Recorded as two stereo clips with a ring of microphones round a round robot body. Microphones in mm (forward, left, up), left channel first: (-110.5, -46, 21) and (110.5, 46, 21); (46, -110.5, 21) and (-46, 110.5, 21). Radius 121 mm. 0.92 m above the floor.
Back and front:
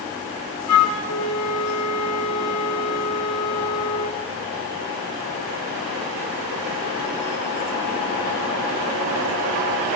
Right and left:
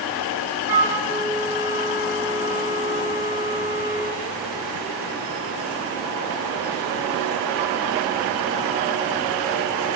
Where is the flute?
170° right, 0.6 m.